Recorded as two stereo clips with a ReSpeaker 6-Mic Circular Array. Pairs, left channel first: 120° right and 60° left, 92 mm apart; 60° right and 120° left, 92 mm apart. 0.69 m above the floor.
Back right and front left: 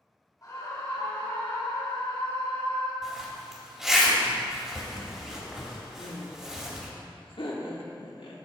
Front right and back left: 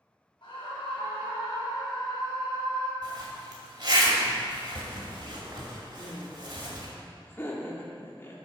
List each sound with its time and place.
0.4 s a scream: 70° right, 3 m; by 2.9 s 105° right, 5.5 m
3.0 s a zipper: 145° left, 2 m
6.0 s laughter: 120° right, 1.2 m